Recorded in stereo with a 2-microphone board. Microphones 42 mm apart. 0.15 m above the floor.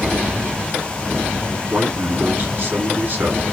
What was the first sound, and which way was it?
A man speaking, 50° right (ahead or behind).